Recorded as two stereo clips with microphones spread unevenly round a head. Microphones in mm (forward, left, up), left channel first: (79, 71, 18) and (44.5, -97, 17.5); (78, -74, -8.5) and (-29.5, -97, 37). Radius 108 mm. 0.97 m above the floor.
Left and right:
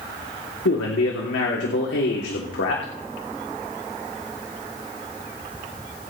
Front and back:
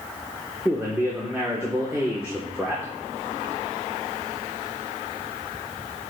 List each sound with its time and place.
0.7 s a man speaking: 100° left, 3 m